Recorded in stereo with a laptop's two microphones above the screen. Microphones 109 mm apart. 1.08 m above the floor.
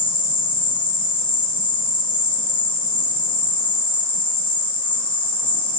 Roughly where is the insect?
Left.